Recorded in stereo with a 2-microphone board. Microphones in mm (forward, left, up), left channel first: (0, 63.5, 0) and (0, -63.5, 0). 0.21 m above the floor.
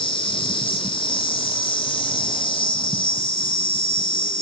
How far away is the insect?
About 1.0 m.